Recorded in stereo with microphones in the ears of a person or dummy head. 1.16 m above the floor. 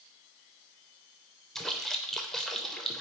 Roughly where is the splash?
Centre.